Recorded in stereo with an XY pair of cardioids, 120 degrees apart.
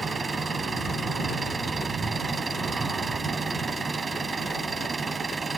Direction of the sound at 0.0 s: 25° right.